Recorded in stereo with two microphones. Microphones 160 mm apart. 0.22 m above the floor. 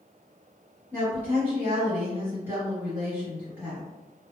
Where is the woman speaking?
10° right (ahead or behind), 1.3 m.